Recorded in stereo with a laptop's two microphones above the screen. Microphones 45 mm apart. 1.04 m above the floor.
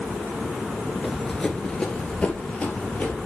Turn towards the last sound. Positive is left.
turn(degrees=30)  # may be behind; listen again after turning